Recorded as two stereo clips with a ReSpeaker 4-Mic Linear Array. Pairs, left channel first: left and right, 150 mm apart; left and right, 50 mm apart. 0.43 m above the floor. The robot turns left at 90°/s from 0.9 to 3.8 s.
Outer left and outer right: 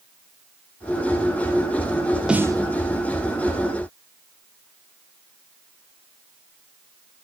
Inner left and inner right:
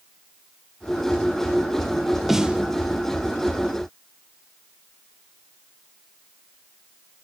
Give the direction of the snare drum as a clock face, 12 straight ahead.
12 o'clock.